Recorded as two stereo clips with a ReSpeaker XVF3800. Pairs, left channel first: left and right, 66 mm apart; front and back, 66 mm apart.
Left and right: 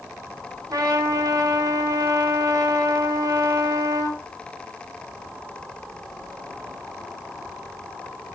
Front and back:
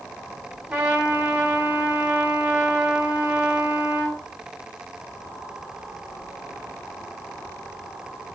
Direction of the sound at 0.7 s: 120° right.